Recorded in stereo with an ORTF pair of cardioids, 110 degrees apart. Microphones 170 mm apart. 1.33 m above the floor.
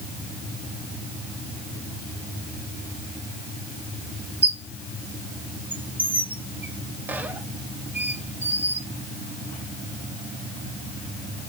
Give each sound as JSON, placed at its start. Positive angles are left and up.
{"t": 4.4, "sound": "a squeak", "azimuth_deg": -10, "distance_m": 0.5}